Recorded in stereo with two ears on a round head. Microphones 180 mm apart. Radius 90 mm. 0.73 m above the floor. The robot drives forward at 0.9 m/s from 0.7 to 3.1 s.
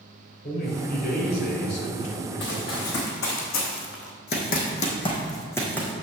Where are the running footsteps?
65° left (ahead or behind), 3.5 m; by 5.9 s 5° left (ahead or behind), 2.5 m.